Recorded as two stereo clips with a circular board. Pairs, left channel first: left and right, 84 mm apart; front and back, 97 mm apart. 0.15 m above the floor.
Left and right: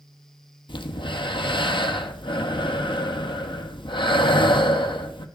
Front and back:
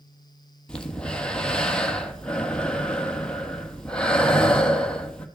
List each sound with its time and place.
0.7 s breathing: 80° left, 1.1 m